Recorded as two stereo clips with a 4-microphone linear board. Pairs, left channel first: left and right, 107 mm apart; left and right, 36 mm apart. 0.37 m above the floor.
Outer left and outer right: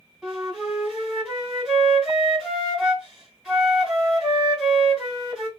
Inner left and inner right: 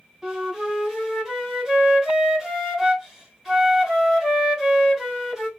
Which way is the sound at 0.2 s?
Centre (ahead or behind).